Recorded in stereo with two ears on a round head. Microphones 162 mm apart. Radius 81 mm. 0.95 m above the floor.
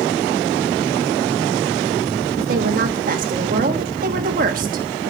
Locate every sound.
2.4 s a woman speaking: 45° right (ahead or behind), 1.3 m